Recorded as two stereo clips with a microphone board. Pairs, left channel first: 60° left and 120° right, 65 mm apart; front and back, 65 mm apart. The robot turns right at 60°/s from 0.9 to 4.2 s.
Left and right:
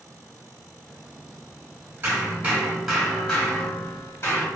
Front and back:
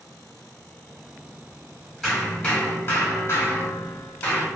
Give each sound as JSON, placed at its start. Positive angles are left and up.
{"t": 2.0, "sound": "hammering", "azimuth_deg": -85, "distance_m": 1.0}